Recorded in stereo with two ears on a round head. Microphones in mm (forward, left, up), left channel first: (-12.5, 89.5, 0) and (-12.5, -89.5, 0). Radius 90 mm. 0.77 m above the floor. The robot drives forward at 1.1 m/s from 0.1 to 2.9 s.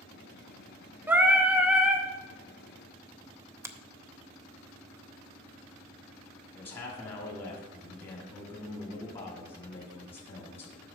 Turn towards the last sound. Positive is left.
turn(degrees=30)  # may be behind; listen again after turning